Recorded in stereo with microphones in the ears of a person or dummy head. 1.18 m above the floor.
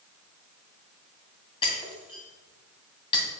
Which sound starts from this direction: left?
Breaking glass, at 1.6 s.